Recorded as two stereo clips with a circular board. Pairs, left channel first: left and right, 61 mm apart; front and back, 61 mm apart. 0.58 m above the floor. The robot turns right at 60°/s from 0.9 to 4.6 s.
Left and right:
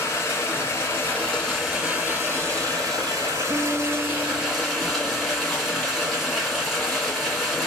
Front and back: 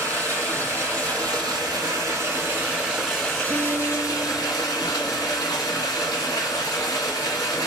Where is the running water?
135° left, 2 m; by 7.7 s straight ahead, 2 m.